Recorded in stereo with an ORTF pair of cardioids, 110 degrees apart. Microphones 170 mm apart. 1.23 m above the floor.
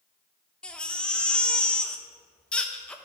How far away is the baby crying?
About 0.7 m.